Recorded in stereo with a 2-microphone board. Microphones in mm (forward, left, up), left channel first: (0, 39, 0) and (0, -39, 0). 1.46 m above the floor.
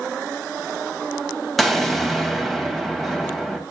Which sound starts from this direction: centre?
An explosion, at 1.6 s.